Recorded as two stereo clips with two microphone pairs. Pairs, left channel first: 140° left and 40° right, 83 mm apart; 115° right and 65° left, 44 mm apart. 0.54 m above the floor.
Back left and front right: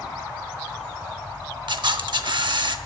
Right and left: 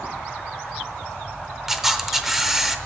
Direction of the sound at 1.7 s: 20° right.